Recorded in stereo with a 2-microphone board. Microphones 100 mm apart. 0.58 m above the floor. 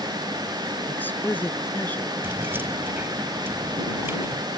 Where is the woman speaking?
20° left (ahead or behind).